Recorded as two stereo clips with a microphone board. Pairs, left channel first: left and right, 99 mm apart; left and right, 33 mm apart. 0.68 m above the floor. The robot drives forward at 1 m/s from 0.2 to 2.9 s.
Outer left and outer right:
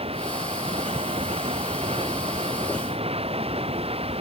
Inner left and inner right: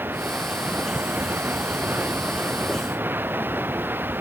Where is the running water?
85° right; by 4.2 s 90° right.